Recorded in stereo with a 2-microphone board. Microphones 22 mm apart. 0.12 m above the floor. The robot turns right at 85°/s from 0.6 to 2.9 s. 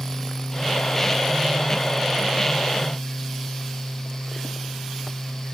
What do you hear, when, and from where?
Only background noise.